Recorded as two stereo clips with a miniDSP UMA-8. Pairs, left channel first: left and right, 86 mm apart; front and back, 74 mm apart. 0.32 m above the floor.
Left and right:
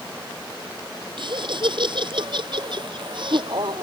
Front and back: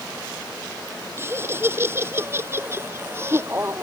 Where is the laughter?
120° right.